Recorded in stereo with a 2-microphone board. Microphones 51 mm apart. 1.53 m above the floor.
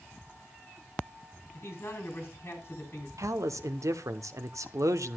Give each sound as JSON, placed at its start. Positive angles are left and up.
{"t": 1.5, "sound": "a man speaking", "side_deg": 50, "distance_m": 4.0}
{"t": 3.2, "sound": "a man speaking", "side_deg": -80, "distance_m": 0.8}